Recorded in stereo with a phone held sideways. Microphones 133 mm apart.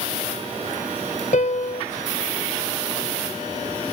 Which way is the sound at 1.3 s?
70° left (ahead or behind).